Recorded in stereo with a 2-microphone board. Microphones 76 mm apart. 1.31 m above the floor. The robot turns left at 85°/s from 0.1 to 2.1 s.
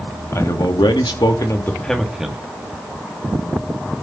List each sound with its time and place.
0.3 s a man speaking: 145° left, 2.0 m; by 2.4 s 5° right, 2.0 m